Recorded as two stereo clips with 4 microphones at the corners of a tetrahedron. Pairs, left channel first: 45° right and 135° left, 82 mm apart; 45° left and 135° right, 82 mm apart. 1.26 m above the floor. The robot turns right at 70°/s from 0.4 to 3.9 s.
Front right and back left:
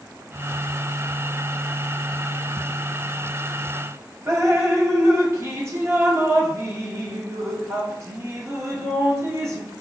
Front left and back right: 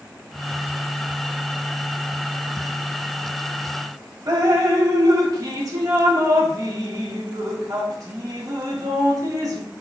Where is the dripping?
175° right, 0.7 m.